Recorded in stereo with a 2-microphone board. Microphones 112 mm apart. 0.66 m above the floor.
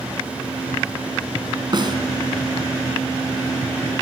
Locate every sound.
1.7 s a snare drum: 40° right (ahead or behind), 4 m